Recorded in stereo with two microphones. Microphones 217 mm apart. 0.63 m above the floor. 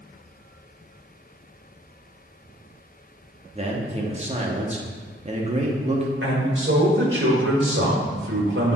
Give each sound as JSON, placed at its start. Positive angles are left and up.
{"t": 3.5, "sound": "a man speaking", "side_deg": -30, "distance_m": 0.9}
{"t": 6.2, "sound": "a man speaking", "side_deg": -60, "distance_m": 1.7}